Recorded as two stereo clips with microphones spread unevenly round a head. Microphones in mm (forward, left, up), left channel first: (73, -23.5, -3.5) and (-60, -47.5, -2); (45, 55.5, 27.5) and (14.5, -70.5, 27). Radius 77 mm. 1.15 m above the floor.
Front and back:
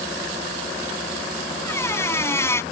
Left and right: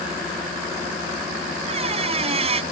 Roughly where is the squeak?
Ahead right.